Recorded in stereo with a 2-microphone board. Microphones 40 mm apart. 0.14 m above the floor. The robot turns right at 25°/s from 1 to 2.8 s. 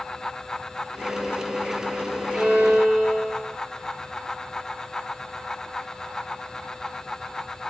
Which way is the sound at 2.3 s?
20° left (ahead or behind).